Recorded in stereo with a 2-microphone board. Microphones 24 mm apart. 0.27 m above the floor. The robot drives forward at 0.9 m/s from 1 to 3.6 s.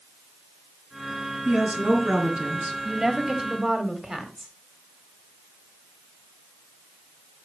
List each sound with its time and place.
1.4 s a woman speaking: 70° right (ahead or behind), 4 m; by 2.8 s 65° right (ahead or behind), 4.5 m
2.9 s a woman speaking: 25° right (ahead or behind), 1.4 m